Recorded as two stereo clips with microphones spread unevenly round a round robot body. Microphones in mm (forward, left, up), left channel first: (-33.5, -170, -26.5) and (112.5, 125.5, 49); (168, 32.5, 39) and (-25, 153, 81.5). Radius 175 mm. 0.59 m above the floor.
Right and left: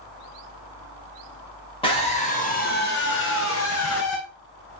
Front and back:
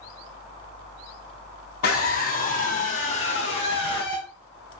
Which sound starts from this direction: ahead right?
A scream, at 1.8 s.